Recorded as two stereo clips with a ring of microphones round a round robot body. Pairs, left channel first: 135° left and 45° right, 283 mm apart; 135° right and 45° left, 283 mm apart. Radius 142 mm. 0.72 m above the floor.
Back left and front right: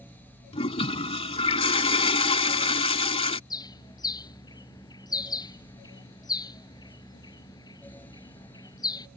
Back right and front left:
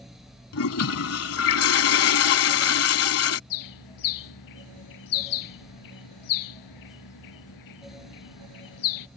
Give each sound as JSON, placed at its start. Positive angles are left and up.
{"t": 0.5, "sound": "a toilet flushing", "azimuth_deg": -160}
{"t": 3.5, "sound": "a bird", "azimuth_deg": -150}